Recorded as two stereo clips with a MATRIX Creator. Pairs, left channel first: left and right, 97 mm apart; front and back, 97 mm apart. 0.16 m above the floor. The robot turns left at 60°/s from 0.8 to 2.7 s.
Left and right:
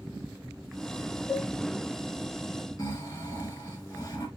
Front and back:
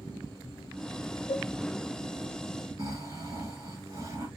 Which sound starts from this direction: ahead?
A cowbell, at 1.3 s.